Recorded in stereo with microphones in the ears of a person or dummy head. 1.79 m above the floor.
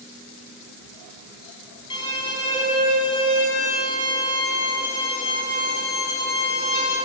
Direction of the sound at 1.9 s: 30° left (ahead or behind).